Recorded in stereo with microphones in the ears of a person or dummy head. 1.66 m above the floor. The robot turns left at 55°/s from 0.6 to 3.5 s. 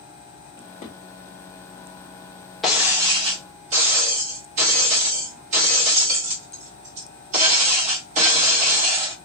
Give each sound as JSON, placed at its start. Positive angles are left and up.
{"t": 0.6, "sound": "a drawer", "side_deg": 25, "distance_m": 2.0}
{"t": 2.6, "sound": "breaking glass", "azimuth_deg": 5, "distance_m": 2.5}